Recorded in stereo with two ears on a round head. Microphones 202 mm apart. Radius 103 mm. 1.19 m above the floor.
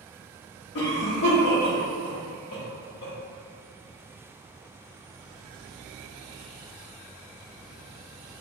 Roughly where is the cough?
Left.